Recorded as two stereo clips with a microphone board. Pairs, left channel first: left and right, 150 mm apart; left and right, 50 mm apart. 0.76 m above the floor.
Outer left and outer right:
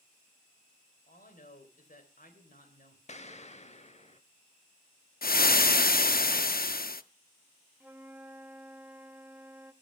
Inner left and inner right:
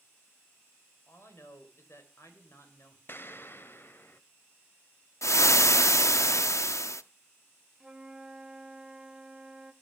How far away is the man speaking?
About 3 m.